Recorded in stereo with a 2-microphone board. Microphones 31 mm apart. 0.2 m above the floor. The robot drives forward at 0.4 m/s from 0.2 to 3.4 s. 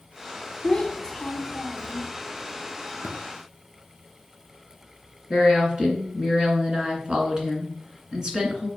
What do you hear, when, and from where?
0.6 s a child speaking: 25° left (ahead or behind), 1.2 m; by 2.1 s 30° left (ahead or behind), 1.0 m
3.0 s tapping: 70° right (ahead or behind), 1.8 m
5.3 s a woman speaking: 25° right (ahead or behind), 2.5 m